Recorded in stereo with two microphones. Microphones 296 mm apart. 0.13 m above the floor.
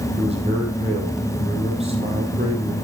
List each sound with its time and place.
0.2 s a man speaking: 20° right (ahead or behind), 4 m